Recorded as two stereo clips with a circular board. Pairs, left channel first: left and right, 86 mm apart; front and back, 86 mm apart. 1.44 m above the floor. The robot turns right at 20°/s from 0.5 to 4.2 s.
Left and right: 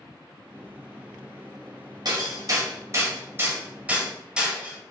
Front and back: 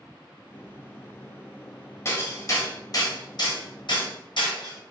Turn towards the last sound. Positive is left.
turn(degrees=-10)